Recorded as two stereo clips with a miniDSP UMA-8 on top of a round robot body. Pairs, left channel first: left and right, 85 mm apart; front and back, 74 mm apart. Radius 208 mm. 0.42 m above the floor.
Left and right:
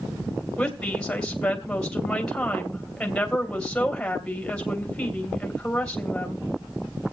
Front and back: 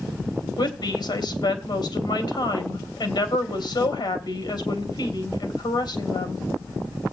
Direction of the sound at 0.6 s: 15° left.